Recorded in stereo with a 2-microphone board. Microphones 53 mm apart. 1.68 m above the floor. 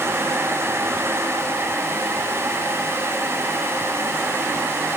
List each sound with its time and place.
Only background noise.